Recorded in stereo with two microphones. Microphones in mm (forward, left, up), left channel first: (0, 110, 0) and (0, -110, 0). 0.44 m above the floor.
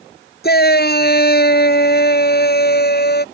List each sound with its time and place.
0.4 s a shout: 45° left (ahead or behind)